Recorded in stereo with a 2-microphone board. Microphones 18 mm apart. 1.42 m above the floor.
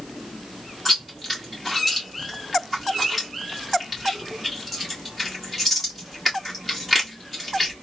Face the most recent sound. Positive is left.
turn(degrees=-5)  # may be behind; listen again after turning